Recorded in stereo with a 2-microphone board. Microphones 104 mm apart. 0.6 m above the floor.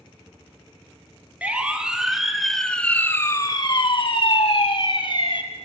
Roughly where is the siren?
Centre.